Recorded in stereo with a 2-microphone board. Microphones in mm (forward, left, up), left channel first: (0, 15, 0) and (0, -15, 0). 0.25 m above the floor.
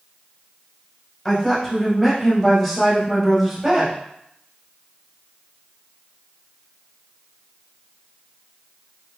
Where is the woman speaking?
15° left (ahead or behind), 1.4 m; by 4.0 s 10° right (ahead or behind), 1.5 m.